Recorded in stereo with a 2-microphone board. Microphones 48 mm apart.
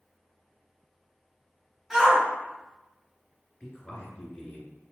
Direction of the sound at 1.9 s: 20° right (ahead or behind).